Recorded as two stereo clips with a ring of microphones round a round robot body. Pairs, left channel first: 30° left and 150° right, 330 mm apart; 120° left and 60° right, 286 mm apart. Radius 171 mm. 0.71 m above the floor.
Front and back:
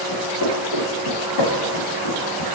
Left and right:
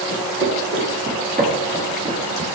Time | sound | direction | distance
0.1 | footsteps | 15° right | 3.5 m